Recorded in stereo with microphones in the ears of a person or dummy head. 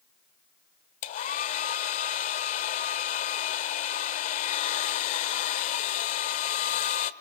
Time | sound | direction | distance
1.0 | a hair dryer | 35° left (ahead or behind) | 1.3 m